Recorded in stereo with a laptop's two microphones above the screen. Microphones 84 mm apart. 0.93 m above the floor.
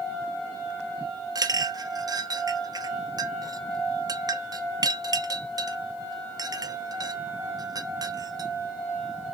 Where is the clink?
50° right (ahead or behind), 0.6 m.